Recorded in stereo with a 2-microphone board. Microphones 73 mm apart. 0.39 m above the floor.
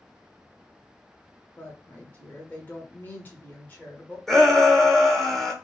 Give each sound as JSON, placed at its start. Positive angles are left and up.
{"t": 1.6, "sound": "a woman speaking", "side_deg": 25, "distance_m": 1.2}
{"t": 4.3, "sound": "a shout", "side_deg": 5, "distance_m": 0.8}